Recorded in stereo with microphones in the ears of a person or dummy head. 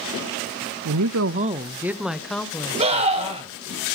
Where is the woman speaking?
75° right (ahead or behind), 0.6 m; by 3.6 s 15° left (ahead or behind), 3 m.